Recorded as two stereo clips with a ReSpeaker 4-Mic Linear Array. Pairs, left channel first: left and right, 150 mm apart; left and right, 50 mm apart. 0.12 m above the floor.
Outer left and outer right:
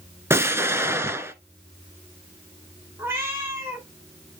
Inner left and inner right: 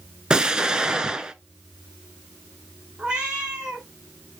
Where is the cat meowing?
15° right (ahead or behind), 2.5 m.